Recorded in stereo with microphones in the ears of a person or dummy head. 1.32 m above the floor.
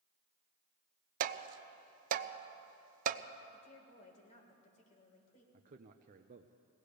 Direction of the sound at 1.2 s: 45° right (ahead or behind).